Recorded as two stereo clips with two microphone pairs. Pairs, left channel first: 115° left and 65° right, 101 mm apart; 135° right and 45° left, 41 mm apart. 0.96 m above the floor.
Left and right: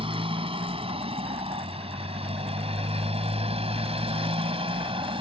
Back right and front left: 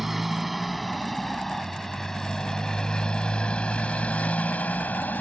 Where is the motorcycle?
40° right; by 5.2 s 90° right.